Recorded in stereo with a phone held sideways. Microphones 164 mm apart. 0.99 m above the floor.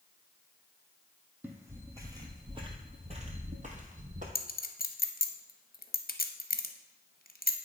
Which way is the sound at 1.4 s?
10° right (ahead or behind).